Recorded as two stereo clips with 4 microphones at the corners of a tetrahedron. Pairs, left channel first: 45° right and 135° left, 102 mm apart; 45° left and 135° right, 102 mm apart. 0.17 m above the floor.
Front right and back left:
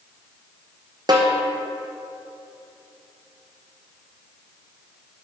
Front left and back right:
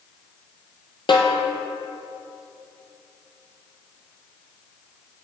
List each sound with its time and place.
1.1 s a snare drum: 85° left, 1.2 m